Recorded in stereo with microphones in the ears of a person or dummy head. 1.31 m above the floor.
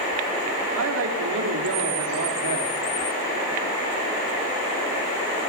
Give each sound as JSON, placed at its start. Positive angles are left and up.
{"t": 0.8, "sound": "a woman speaking", "side_deg": -85, "distance_m": 2.5}